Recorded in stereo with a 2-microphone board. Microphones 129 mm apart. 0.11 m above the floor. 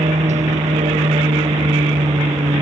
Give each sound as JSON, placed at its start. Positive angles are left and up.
{"t": 0.0, "sound": "an aircraft", "side_deg": -65}